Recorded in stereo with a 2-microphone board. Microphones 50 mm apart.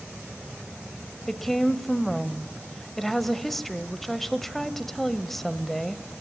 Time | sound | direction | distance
1.3 | a woman speaking | 5° left (ahead or behind) | 1.1 m